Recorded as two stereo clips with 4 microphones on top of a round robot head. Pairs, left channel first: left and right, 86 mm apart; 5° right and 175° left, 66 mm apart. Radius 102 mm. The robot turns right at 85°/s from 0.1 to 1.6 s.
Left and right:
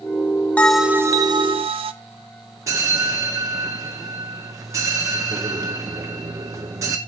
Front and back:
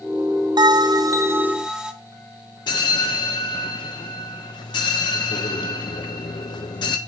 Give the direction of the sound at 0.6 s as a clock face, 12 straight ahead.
6 o'clock.